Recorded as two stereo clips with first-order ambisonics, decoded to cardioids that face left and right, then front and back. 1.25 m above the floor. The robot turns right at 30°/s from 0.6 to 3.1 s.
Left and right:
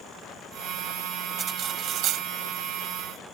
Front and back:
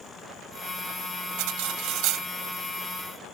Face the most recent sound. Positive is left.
turn(degrees=-110)